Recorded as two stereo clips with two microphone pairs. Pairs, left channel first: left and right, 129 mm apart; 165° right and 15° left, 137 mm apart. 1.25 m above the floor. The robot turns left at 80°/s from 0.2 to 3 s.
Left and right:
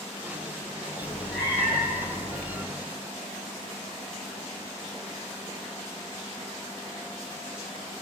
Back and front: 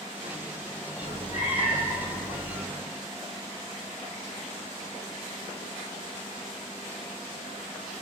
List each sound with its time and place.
1.0 s a cat meowing: 150° right, 1.8 m; by 2.6 s 80° left, 1.8 m